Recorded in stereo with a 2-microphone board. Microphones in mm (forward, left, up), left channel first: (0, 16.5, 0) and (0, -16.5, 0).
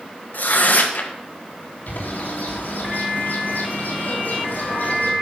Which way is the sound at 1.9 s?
65° left (ahead or behind).